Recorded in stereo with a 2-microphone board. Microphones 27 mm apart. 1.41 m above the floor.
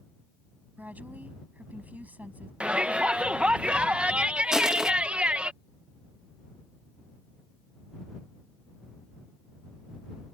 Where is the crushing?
25° right (ahead or behind).